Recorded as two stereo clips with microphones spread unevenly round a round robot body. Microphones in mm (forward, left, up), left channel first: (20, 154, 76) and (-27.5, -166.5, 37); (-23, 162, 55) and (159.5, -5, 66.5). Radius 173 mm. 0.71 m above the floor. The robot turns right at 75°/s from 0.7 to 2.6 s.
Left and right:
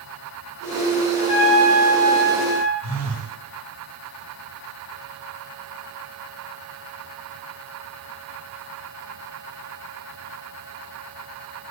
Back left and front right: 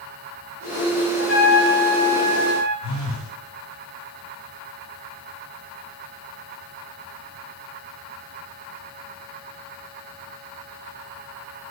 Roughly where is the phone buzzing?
Ahead right.